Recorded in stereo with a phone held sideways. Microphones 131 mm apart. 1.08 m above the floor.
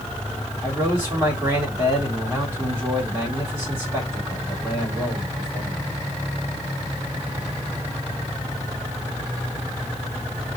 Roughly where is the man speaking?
Centre.